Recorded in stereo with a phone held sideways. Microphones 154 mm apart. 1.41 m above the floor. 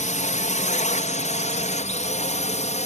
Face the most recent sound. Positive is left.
turn(degrees=50)  # may be behind; listen again after turning